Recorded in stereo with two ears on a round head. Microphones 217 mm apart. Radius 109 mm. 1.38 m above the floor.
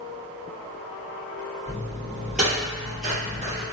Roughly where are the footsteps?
Centre.